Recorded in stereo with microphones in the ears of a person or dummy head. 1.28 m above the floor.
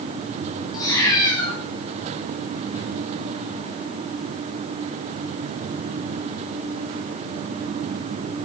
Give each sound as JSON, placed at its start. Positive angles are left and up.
{"t": 0.7, "sound": "a cat meowing", "side_deg": 20, "distance_m": 5.5}